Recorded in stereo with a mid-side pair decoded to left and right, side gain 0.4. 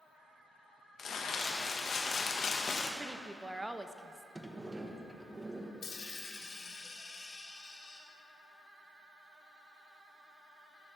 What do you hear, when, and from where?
1.0 s crumpling: 55° left, 1.4 m
3.0 s a woman speaking: 15° right, 0.8 m
4.3 s a sliding door: 15° right, 1.1 m
5.8 s a dropped coin: 55° left, 2 m